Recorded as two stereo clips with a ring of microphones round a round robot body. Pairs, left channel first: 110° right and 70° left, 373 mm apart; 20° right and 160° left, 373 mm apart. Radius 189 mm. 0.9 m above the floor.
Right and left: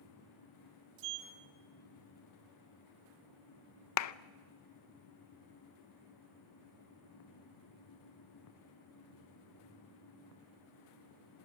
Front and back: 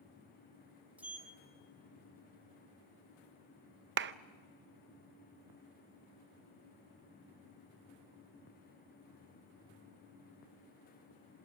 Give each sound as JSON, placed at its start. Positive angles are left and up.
{"t": 1.0, "sound": "a sliding door", "azimuth_deg": 70, "distance_m": 2.5}
{"t": 4.0, "sound": "a clap", "azimuth_deg": -150, "distance_m": 0.6}